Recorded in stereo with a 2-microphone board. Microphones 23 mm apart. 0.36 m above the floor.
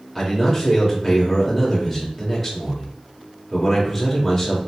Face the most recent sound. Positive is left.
turn(degrees=20)  # may be behind; listen again after turning